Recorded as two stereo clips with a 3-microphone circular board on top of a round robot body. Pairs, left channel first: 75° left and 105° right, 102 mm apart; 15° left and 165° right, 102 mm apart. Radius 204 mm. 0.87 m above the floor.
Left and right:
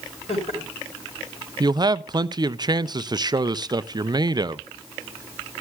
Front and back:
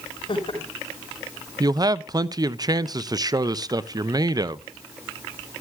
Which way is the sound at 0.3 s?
60° left.